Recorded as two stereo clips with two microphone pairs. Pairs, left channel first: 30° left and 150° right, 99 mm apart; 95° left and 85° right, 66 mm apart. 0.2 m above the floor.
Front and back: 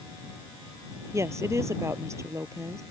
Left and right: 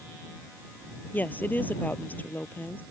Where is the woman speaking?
155° left.